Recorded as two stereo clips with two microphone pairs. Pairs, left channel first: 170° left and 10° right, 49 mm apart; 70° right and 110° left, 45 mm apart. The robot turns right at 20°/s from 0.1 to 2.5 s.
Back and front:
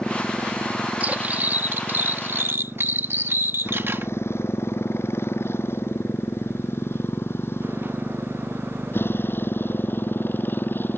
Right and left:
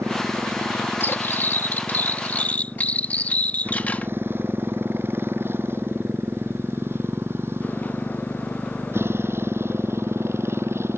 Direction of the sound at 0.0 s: 100° left.